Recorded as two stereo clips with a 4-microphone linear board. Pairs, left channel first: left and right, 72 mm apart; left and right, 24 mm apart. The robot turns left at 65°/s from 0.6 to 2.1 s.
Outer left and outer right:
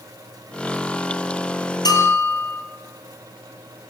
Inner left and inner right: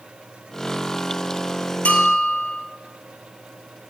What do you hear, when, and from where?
1.9 s a bell: 65° left (ahead or behind), 1.9 m; by 2.6 s 50° left (ahead or behind), 1.9 m